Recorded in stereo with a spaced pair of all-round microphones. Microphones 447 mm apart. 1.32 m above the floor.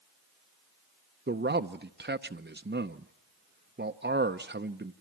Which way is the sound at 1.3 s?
25° right (ahead or behind).